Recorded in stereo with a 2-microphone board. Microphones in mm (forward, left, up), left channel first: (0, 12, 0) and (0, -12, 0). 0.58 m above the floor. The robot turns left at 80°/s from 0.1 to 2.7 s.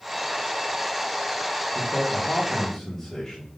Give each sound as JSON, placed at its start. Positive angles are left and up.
{"t": 1.8, "sound": "a man speaking", "azimuth_deg": 95, "distance_m": 1.2}